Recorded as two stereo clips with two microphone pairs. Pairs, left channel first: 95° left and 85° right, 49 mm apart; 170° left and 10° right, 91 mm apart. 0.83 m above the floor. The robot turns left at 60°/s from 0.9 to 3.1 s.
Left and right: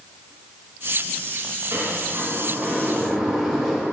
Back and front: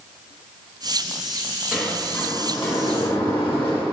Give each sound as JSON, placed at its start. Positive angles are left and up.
{"t": 1.7, "sound": "a sliding door", "azimuth_deg": -95, "distance_m": 1.8}